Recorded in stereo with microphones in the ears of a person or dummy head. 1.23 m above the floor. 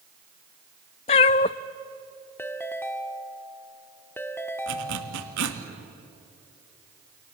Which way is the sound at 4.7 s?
60° right (ahead or behind).